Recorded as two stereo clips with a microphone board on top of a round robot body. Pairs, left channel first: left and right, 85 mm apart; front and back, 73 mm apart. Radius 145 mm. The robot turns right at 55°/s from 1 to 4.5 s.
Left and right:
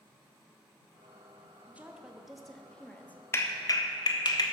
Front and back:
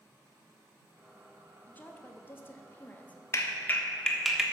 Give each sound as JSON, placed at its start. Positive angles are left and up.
{"t": 1.7, "sound": "a woman speaking", "azimuth_deg": -35, "distance_m": 1.3}
{"t": 3.3, "sound": "a clap", "azimuth_deg": 40, "distance_m": 1.5}